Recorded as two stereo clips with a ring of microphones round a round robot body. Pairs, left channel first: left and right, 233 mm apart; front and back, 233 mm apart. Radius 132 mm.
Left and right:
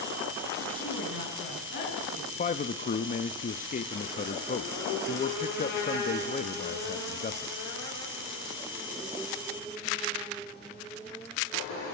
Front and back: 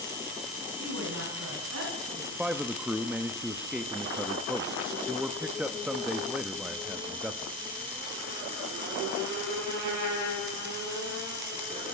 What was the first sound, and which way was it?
A woman speaking, 135° left.